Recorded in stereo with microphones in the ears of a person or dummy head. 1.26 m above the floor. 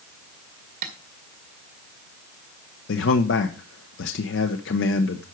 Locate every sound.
0.8 s tapping: 50° right (ahead or behind), 1.8 m
2.9 s a man speaking: 70° left (ahead or behind), 0.9 m